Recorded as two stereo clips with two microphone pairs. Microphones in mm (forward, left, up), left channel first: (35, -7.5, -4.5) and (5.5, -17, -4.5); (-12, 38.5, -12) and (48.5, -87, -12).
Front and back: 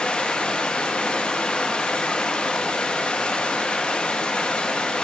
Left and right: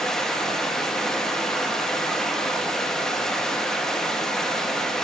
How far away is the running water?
About 0.8 m.